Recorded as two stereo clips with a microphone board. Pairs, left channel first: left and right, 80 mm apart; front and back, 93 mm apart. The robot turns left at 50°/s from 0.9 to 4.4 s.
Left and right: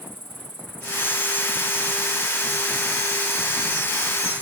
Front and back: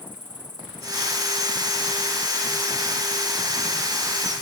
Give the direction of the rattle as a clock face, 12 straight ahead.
No rattle in this recording.